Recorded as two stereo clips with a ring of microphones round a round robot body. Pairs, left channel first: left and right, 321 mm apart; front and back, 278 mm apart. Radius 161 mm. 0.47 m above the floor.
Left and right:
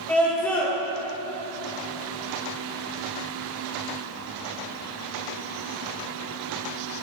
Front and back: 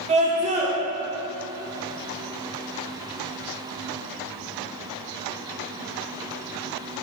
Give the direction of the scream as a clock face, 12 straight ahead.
6 o'clock.